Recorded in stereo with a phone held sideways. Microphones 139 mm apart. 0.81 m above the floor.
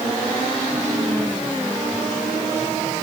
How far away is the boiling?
I don't hear boiling.